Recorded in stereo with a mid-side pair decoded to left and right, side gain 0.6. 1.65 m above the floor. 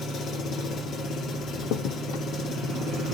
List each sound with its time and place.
0.0 s an engine running: 50° left, 3 m
1.6 s a crack: 70° left, 1.0 m